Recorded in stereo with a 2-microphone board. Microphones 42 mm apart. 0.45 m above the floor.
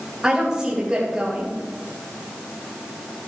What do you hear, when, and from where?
0.2 s a woman speaking: 20° right (ahead or behind), 2.5 m